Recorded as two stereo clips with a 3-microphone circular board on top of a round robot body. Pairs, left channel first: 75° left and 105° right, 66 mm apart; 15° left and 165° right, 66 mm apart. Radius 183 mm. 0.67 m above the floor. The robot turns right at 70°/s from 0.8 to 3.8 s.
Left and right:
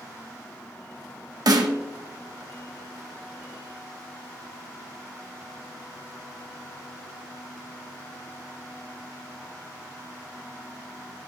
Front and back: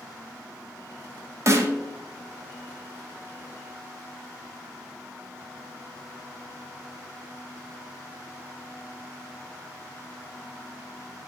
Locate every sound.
1.5 s a snare drum: 125° right, 1.0 m; by 1.8 s 100° right, 1.0 m